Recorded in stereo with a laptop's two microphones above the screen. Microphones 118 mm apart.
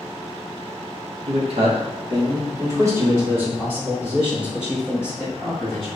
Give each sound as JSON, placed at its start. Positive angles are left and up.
{"t": 1.3, "sound": "a man speaking", "side_deg": -65, "distance_m": 1.2}